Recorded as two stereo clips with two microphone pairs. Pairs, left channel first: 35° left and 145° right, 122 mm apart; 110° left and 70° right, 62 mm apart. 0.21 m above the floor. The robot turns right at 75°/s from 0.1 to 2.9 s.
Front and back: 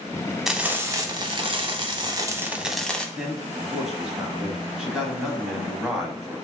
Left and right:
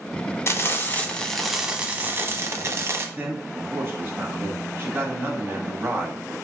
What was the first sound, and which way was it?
Frying, 130° left.